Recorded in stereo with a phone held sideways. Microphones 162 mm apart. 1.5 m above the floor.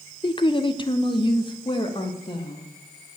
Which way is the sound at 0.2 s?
35° left (ahead or behind).